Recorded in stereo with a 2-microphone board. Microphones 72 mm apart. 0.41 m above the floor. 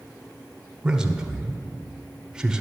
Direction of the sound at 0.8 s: 10° right (ahead or behind).